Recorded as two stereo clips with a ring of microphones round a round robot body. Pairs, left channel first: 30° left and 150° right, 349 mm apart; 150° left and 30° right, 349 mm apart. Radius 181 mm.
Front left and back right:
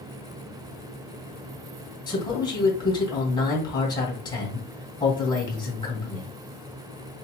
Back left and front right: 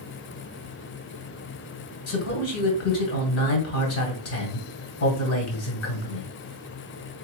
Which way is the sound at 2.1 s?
105° left.